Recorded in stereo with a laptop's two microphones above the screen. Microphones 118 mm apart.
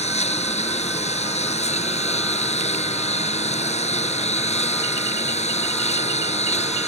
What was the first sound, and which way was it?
A lawn mower, 70° left (ahead or behind).